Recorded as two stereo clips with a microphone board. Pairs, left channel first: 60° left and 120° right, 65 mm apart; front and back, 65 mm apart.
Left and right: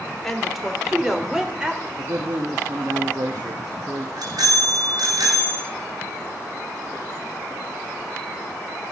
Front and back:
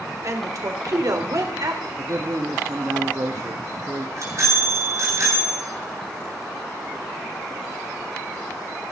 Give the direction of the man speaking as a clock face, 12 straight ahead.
5 o'clock.